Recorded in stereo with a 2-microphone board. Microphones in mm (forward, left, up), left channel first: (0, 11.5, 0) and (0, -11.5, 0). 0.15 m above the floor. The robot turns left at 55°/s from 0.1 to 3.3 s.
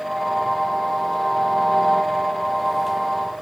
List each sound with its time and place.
Only background noise.